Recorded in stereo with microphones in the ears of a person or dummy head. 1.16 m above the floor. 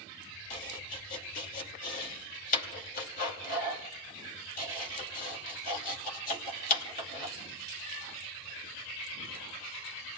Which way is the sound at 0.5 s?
45° left (ahead or behind).